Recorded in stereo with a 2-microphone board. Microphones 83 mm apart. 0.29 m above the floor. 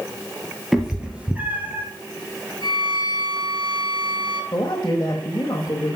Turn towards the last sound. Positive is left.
turn(degrees=35)  # may be behind; listen again after turning